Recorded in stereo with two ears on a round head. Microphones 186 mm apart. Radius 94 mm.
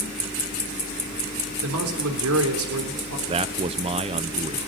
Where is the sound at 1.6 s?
85° right, 3.5 m.